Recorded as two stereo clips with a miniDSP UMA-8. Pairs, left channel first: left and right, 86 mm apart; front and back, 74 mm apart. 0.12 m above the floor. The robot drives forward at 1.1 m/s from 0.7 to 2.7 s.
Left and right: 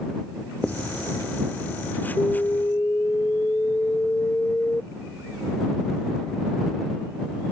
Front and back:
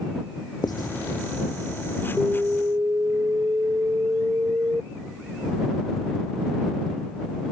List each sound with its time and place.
0.6 s writing: 15° left; by 0.9 s 20° left
2.2 s an alarm: 115° left; by 4.8 s 145° left